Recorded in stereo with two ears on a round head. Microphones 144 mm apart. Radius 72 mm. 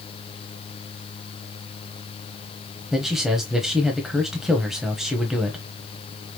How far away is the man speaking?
About 1.2 m.